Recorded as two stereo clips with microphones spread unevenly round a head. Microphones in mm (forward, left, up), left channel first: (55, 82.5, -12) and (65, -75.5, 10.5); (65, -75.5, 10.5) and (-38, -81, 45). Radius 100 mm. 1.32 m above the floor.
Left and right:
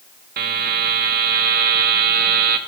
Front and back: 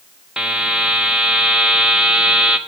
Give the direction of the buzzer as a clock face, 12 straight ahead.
3 o'clock.